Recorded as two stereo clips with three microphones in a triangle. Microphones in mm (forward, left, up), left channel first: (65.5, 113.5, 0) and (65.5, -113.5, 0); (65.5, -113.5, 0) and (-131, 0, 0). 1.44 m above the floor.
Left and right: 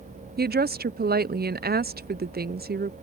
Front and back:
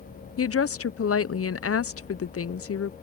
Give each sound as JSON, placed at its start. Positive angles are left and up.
{"t": 0.4, "sound": "a woman speaking", "azimuth_deg": -40}